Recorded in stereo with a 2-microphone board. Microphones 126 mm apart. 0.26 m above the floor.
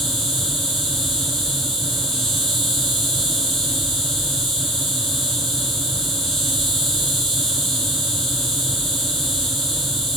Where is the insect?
Centre (ahead or behind), 1.0 m.